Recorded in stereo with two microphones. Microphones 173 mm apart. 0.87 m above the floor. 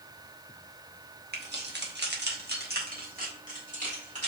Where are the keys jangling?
70° right (ahead or behind), 0.8 m; by 4.3 s 45° right (ahead or behind), 1.9 m.